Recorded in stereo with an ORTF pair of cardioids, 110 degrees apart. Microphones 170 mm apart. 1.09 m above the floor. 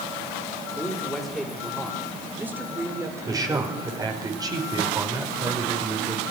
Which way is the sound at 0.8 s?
5° left.